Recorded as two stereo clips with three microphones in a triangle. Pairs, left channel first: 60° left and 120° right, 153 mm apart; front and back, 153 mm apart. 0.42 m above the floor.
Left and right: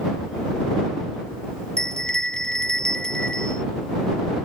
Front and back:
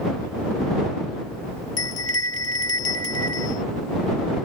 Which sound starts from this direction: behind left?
A bell, at 1.8 s.